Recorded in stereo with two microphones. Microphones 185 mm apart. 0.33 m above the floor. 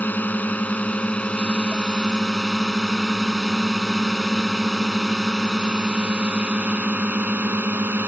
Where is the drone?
10° left (ahead or behind); by 8.1 s 10° right (ahead or behind).